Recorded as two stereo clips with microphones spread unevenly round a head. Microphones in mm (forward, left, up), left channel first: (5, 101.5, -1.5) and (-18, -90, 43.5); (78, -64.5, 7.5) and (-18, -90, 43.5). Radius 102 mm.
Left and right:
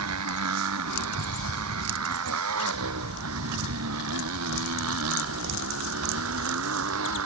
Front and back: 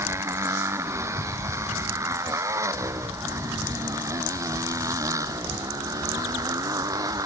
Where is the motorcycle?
105° right; by 7.3 s 115° right.